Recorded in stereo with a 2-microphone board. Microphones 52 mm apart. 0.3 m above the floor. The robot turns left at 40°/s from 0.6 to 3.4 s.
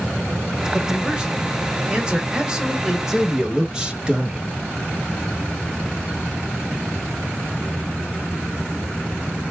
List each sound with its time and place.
0.7 s a man speaking: 15° right (ahead or behind), 0.9 m; by 3.0 s 10° right (ahead or behind), 0.9 m
3.1 s a man speaking: 10° right (ahead or behind), 1.0 m; by 4.5 s 20° right (ahead or behind), 1.0 m